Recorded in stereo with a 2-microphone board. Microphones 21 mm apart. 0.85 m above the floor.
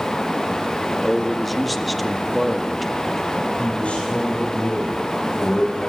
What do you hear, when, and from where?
1.0 s a man speaking: 5° left (ahead or behind), 1.4 m
3.6 s a man speaking: 65° left (ahead or behind), 4 m